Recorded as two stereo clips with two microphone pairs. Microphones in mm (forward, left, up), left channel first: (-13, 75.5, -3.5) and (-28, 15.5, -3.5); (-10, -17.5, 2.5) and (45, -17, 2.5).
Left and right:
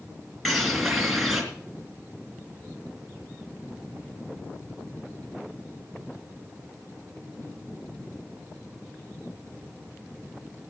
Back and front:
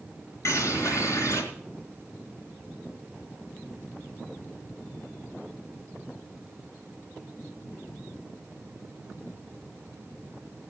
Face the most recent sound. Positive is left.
turn(degrees=170)